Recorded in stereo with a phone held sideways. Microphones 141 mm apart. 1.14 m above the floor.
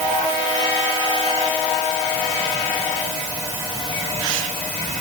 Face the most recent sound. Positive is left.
No sound to turn to.